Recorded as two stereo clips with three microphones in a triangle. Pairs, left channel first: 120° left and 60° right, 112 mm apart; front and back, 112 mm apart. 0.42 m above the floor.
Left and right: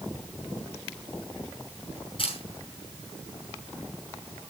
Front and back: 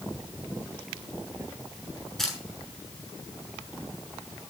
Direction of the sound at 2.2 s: 85° left.